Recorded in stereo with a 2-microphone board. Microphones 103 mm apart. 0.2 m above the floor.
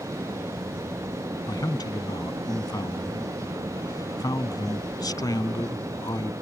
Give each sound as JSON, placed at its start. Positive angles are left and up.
{"t": 1.5, "sound": "a man speaking", "side_deg": 40}